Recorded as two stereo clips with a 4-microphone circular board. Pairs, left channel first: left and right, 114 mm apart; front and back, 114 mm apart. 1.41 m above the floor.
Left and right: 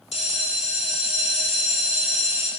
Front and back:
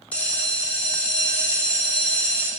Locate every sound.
0.1 s a bell: 80° left, 2.5 m